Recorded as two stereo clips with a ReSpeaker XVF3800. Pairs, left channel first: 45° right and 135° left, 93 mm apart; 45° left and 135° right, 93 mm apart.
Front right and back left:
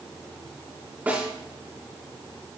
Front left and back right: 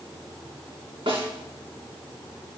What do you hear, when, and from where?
1.1 s a snare drum: 155° right, 4 m